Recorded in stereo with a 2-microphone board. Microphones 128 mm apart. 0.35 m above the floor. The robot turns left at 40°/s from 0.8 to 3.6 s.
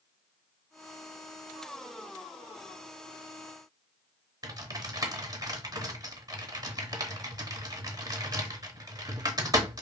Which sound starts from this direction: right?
Typing on a keyboard, at 4.4 s.